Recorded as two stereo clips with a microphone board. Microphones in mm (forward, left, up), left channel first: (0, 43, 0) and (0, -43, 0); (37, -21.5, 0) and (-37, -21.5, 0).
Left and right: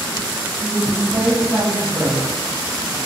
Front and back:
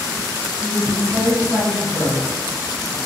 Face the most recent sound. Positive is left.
turn(degrees=-35)